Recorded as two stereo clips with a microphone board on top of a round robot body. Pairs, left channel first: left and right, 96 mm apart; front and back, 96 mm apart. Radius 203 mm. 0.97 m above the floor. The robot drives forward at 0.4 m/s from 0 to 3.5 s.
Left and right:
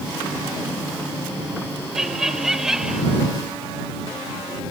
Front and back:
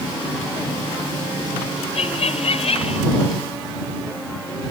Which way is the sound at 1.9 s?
5° right.